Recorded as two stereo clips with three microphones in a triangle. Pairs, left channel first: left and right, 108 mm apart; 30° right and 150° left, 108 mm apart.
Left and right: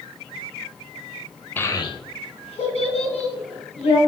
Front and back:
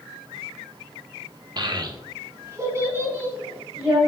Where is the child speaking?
155° left, 0.5 m; by 4.0 s 75° left, 3 m.